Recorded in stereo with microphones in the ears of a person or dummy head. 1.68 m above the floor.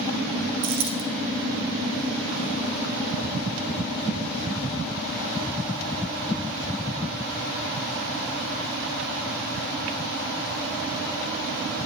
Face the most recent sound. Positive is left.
turn(degrees=-60)  # may be behind; listen again after turning